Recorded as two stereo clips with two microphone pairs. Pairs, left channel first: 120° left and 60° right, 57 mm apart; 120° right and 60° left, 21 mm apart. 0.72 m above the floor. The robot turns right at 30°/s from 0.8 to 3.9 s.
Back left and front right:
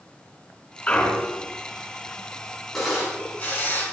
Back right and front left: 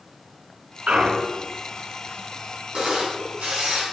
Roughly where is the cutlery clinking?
No cutlery clinking in this recording.